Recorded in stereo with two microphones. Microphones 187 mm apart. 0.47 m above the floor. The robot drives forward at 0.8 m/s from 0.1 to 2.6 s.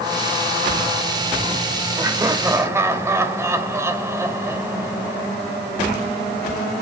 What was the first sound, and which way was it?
Laughter, 20° right (ahead or behind).